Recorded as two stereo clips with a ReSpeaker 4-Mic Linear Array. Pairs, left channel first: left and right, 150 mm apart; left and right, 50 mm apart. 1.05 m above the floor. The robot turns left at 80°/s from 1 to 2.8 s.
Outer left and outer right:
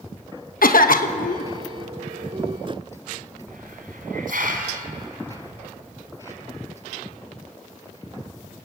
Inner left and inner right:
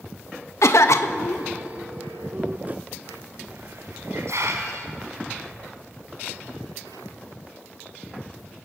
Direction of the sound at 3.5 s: 75° right (ahead or behind).